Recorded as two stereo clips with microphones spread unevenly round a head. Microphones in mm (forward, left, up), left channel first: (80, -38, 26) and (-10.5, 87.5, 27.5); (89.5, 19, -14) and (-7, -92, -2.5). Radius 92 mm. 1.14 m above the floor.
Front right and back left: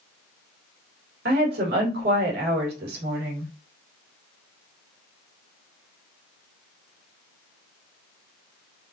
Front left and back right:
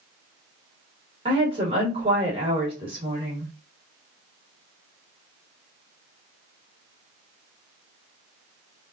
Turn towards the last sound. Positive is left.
turn(degrees=165)